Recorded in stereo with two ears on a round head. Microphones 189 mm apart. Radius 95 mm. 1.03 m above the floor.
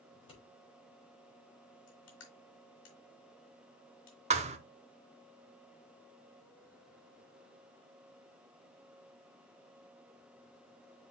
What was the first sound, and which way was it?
Scissors, 30° left (ahead or behind).